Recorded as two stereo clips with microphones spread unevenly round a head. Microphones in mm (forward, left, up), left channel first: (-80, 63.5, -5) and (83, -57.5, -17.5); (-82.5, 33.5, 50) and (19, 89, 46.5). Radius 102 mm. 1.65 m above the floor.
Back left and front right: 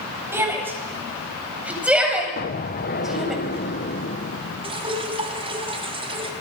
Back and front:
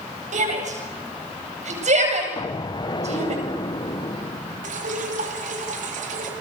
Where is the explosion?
170° left, 0.8 m.